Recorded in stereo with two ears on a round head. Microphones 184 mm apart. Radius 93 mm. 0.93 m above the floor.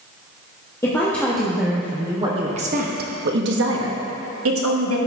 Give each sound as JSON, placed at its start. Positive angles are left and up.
{"t": 0.8, "sound": "a woman speaking", "side_deg": 15, "distance_m": 1.3}